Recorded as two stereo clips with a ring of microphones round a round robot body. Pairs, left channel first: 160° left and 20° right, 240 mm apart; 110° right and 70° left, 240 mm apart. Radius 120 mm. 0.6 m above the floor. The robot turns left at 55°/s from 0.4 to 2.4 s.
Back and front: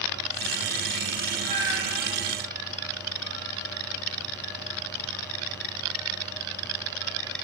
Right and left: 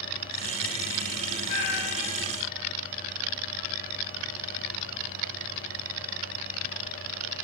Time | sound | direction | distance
1.5 | a cat meowing | 90° right | 2.5 m